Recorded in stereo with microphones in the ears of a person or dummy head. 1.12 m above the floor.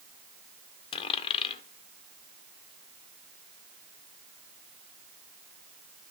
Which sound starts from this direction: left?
A dropped coin, at 0.9 s.